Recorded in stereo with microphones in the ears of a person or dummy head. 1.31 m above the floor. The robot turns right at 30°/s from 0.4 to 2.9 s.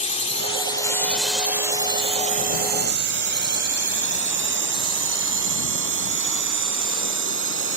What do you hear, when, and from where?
0.0 s a drone: 40° left (ahead or behind); by 7.8 s 65° right (ahead or behind)